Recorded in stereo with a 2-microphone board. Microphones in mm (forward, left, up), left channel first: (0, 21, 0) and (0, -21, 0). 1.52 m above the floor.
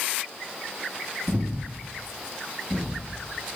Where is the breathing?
30° right (ahead or behind), 1.5 m.